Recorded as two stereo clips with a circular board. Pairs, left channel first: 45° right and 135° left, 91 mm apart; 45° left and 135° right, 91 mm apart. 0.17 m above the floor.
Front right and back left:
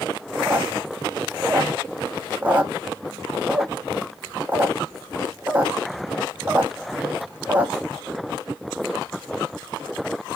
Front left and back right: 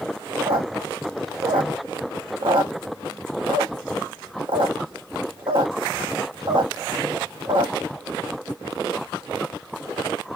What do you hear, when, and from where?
0.4 s a squeak: 155° right, 0.7 m